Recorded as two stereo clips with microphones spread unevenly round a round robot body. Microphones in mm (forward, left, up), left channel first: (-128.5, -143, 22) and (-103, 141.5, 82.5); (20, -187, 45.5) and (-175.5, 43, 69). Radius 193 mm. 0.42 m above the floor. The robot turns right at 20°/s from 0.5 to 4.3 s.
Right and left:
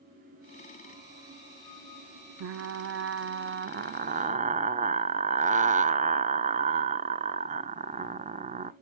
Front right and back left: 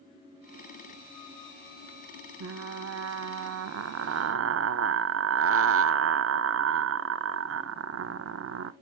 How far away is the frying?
About 0.6 m.